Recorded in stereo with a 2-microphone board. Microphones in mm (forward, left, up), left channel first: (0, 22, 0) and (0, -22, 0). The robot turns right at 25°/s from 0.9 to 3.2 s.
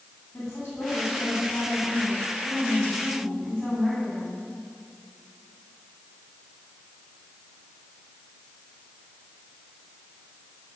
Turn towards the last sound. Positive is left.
turn(degrees=165)